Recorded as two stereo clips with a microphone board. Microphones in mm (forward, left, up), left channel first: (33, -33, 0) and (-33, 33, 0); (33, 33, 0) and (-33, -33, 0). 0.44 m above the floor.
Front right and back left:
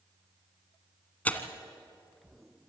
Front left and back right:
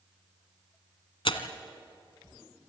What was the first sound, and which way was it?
Tearing paper, 30° left.